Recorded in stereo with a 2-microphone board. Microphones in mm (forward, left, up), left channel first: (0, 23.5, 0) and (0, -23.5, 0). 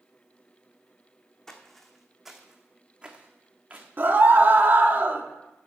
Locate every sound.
1.5 s footsteps: 10° left (ahead or behind), 1.4 m; by 3.9 s 35° right (ahead or behind), 1.8 m
4.0 s a scream: 45° right (ahead or behind), 1.1 m